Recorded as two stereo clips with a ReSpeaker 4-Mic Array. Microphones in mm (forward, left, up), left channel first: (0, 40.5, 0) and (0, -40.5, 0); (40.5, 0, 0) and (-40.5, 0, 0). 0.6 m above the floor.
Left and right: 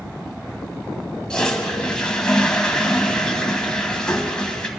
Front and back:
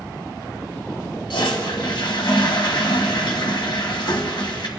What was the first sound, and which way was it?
A toilet flushing, 10° left.